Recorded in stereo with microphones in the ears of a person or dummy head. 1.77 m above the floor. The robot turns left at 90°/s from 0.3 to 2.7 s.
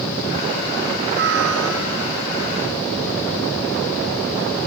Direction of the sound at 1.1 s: 45° right.